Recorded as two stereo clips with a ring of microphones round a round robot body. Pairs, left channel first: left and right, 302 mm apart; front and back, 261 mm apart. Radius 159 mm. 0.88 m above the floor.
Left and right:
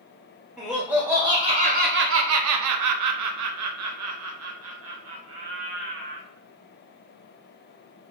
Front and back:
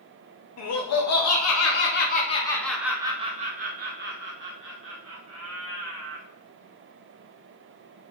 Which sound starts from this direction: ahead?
Laughter, at 0.6 s.